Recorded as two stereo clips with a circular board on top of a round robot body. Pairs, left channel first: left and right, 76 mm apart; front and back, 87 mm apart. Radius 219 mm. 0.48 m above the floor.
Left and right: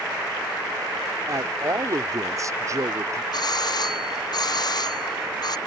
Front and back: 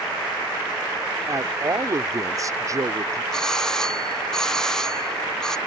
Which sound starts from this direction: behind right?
A man speaking, at 1.3 s.